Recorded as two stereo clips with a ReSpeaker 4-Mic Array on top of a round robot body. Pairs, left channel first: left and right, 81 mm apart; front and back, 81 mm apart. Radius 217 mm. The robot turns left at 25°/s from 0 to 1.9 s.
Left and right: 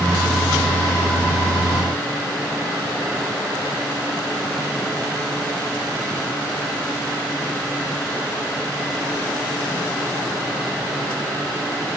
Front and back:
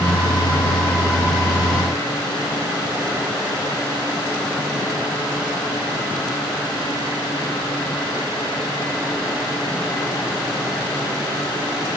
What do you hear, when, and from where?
Only background noise.